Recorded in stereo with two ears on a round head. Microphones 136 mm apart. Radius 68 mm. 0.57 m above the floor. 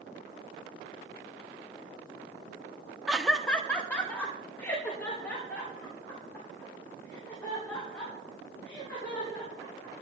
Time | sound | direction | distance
3.1 | laughter | 5° right (ahead or behind) | 0.9 m